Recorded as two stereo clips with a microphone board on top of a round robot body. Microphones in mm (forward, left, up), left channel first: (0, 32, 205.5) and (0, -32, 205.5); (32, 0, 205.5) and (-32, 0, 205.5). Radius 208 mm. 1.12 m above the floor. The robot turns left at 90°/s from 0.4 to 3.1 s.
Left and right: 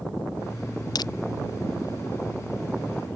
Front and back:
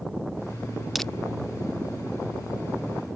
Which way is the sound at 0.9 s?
90° left.